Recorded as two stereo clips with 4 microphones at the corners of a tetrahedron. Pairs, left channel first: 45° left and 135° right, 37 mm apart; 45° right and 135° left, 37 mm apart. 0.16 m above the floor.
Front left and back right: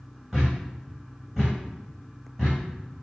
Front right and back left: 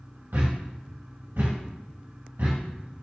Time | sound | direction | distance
0.3 | a thud | 145° left | 3 m